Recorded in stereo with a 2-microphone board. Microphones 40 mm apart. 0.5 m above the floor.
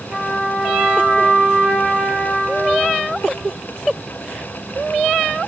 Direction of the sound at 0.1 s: 25° right (ahead or behind).